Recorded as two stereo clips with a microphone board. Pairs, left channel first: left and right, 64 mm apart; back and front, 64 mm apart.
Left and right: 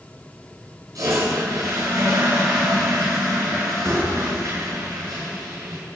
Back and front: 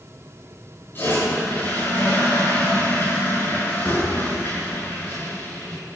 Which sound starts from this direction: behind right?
A toilet flushing, at 0.9 s.